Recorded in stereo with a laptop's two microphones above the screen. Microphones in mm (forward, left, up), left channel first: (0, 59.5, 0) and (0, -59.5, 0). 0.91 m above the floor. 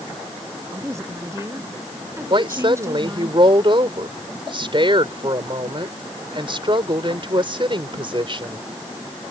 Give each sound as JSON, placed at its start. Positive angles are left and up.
{"t": 0.7, "sound": "a woman speaking", "side_deg": -25}
{"t": 2.3, "sound": "a woman speaking", "side_deg": -45}